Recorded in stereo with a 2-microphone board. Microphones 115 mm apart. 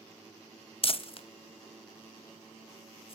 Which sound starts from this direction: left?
Crumpling, at 0.8 s.